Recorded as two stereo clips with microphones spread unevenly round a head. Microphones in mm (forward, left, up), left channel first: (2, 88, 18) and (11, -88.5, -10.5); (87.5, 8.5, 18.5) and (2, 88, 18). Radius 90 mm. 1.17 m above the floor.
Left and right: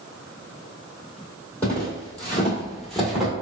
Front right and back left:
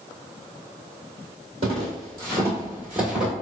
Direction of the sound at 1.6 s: 160° left.